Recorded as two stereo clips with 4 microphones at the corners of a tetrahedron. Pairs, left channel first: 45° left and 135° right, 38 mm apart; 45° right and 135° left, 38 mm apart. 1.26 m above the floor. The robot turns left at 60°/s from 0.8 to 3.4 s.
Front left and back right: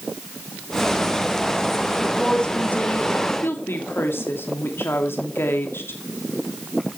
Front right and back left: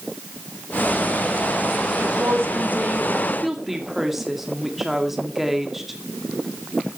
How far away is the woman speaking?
About 2.5 m.